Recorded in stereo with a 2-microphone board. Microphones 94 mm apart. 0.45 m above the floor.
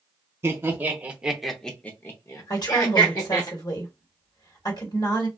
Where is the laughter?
25° right (ahead or behind), 1.3 m; by 3.5 s 45° left (ahead or behind), 1.5 m.